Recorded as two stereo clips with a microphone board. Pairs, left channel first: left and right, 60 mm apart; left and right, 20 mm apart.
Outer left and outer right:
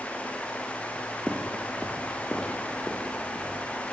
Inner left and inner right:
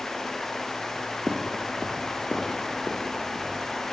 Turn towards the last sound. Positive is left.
turn(degrees=5)  # may be behind; listen again after turning